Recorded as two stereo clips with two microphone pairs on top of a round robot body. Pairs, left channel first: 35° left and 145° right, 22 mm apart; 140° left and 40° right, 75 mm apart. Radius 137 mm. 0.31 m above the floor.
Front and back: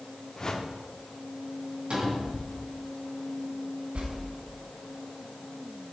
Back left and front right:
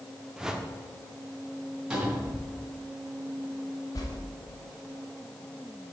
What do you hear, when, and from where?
0.4 s a whoosh: 15° left, 1.1 m
1.9 s a cupboard door: 120° right, 3 m
4.0 s a whoosh: straight behind, 1.2 m